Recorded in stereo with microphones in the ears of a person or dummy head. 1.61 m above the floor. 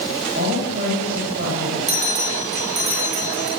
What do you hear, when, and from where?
0.3 s a woman speaking: 45° right (ahead or behind), 7.5 m; by 1.8 s 55° right (ahead or behind), 7 m
1.9 s a bell: 30° right (ahead or behind), 6 m